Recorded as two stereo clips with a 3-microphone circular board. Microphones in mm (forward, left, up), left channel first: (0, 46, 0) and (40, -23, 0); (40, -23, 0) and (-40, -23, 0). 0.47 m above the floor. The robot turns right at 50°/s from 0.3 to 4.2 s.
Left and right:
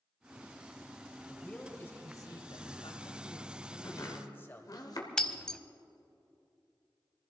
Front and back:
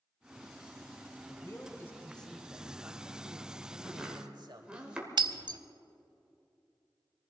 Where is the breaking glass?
160° right, 0.6 m.